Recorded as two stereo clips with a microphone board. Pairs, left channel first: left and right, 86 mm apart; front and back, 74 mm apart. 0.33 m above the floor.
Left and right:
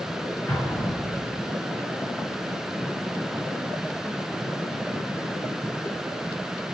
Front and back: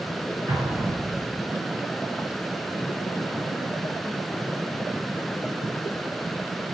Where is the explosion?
145° left, 1.9 m.